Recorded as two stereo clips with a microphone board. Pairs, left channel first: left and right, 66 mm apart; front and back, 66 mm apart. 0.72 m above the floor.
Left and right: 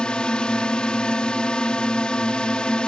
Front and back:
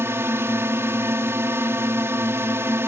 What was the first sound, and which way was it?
A drone, 160° left.